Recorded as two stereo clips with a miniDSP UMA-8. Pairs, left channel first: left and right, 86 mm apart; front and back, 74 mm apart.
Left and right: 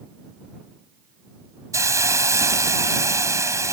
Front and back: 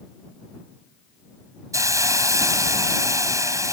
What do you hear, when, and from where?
1.7 s a hiss: 140° right